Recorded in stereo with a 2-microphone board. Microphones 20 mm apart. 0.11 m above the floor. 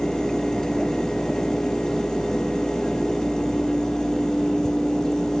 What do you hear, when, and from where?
Only background noise.